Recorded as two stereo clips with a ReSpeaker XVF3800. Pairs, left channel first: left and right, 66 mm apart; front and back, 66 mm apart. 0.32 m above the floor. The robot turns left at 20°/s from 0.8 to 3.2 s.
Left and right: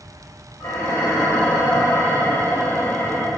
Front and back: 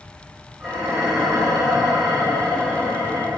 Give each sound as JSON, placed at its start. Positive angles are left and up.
{"t": 0.6, "sound": "dishes clattering", "azimuth_deg": 95, "distance_m": 1.0}